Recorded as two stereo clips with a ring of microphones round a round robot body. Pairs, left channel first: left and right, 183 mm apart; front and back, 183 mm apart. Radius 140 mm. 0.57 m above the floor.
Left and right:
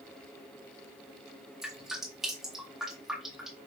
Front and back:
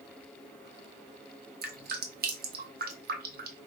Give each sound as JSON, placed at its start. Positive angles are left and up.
{"t": 1.6, "sound": "dripping", "azimuth_deg": 180, "distance_m": 0.7}